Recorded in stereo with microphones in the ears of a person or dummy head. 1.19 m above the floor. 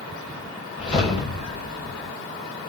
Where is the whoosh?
35° left (ahead or behind), 4 m.